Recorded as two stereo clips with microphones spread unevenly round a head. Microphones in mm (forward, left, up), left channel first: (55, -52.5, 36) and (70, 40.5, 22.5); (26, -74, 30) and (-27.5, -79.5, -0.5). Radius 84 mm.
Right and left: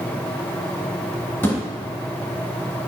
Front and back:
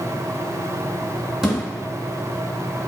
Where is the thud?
55° right, 1.8 m.